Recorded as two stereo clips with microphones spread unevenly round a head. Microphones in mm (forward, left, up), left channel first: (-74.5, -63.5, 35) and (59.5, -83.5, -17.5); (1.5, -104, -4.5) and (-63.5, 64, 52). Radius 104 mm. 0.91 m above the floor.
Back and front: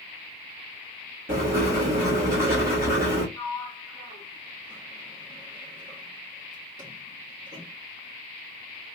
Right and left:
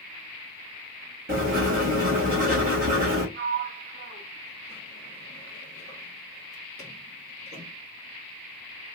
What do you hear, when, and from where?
1.3 s writing: 60° left, 1.8 m
3.4 s a sliding door: 45° left, 1.3 m